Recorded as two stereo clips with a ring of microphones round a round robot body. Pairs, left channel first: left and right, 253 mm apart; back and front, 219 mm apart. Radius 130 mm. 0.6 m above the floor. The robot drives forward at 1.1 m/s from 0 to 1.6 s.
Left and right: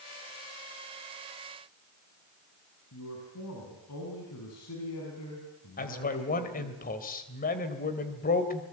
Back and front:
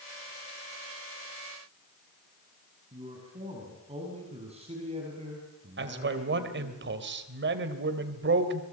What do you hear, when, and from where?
2.9 s a man speaking: 60° left, 6 m
5.8 s a man speaking: 35° left, 3 m